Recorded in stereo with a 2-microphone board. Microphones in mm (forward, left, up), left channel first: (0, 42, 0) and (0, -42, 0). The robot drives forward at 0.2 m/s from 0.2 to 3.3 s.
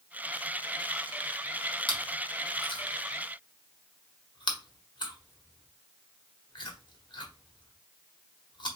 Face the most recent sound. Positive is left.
turn(degrees=70)  # may be behind; listen again after turning